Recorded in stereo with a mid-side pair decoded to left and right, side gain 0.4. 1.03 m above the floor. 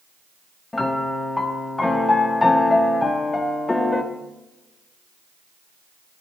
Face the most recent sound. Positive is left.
turn(degrees=20)